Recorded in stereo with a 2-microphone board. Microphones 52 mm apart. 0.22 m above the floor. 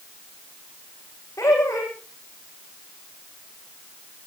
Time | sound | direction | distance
1.4 | laughter | 80° left | 9.5 m